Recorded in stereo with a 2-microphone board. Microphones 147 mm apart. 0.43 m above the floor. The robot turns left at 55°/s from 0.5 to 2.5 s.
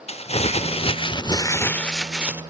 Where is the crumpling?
85° left, 0.7 m; by 2.4 s 20° right, 0.7 m.